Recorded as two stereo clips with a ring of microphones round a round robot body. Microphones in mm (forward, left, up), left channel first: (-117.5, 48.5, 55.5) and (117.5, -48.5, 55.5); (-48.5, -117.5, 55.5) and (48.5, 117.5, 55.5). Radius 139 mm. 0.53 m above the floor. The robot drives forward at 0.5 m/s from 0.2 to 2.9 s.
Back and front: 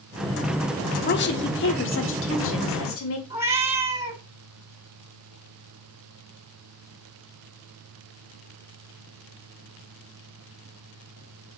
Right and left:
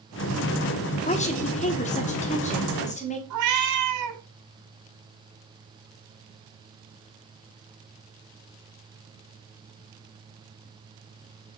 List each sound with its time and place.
1.1 s a woman speaking: 170° right, 1.3 m; by 3.2 s 175° right, 2 m
3.3 s a cat meowing: 60° left, 2.5 m